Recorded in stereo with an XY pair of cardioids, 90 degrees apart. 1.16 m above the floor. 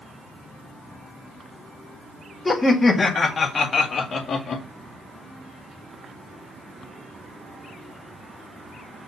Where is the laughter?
25° left, 2.5 m; by 4.7 s 55° left, 2.5 m.